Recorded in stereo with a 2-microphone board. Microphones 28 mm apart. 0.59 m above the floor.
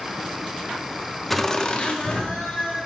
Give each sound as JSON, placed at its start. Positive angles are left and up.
{"t": 1.3, "sound": "laughter", "side_deg": 5, "distance_m": 0.7}